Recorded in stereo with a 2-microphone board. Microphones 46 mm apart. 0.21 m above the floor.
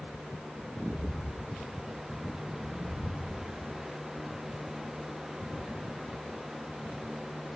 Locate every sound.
0.8 s footsteps: 60° right (ahead or behind), 1.6 m; by 3.5 s 5° left (ahead or behind), 2.5 m